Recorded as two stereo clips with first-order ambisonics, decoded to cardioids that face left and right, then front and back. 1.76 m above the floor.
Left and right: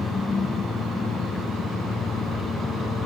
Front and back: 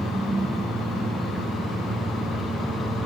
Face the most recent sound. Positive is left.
turn(degrees=120)